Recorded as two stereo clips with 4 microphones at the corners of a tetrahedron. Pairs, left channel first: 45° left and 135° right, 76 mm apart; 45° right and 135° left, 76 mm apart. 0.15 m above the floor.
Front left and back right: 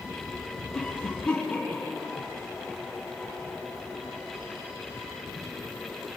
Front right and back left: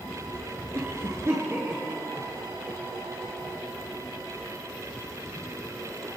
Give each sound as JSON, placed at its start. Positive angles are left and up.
{"t": 0.7, "sound": "a cough", "azimuth_deg": 105, "distance_m": 1.9}